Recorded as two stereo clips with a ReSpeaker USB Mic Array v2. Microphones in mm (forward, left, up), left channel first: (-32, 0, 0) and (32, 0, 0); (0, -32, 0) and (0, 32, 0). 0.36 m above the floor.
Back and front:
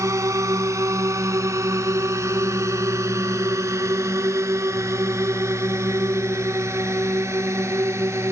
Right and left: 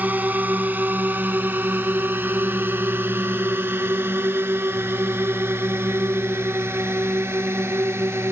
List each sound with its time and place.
0.0 s a drone: 30° left; by 8.3 s 40° left